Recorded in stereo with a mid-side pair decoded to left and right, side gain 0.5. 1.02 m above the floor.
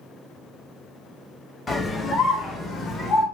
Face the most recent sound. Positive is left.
turn(degrees=60)